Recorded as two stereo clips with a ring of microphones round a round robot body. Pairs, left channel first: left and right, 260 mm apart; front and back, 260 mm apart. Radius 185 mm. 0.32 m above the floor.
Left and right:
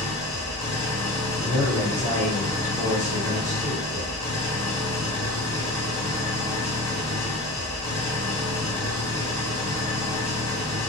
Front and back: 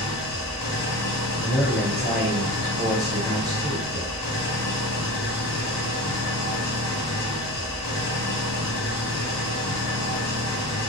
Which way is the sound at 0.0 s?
10° left.